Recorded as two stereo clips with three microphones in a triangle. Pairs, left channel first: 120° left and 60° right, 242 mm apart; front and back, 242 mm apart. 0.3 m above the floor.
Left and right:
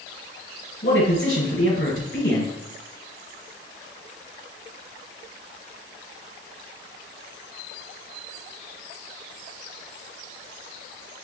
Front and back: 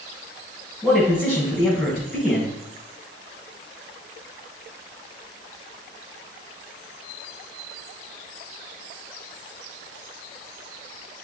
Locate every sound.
0.8 s a man speaking: 90° left, 2 m